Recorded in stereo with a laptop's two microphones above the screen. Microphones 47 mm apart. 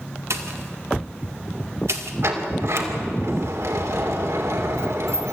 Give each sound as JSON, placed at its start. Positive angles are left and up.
{"t": 0.3, "sound": "a pop", "side_deg": -85, "distance_m": 1.8}
{"t": 2.2, "sound": "a sliding door", "side_deg": -75, "distance_m": 2.5}